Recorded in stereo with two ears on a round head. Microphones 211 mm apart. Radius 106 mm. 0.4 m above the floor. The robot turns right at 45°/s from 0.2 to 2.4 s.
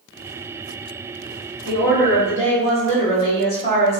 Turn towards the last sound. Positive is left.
turn(degrees=110)